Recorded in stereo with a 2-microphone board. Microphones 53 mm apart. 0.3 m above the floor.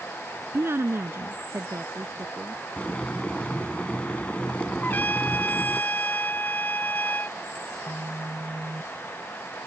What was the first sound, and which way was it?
A woman speaking, 50° right (ahead or behind).